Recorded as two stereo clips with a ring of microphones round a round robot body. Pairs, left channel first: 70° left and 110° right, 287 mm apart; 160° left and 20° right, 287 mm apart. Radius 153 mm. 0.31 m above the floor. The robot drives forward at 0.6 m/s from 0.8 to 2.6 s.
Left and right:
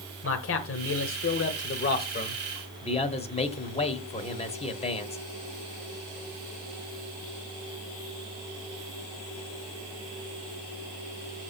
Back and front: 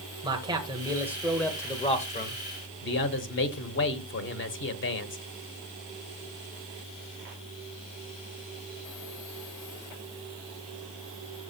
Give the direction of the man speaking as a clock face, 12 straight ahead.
10 o'clock.